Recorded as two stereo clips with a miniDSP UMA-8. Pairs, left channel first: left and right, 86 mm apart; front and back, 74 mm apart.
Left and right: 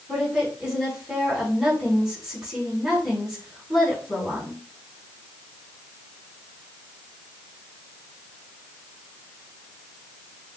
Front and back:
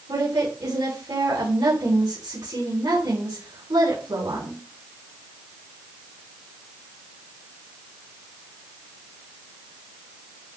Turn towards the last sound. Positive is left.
turn(degrees=-175)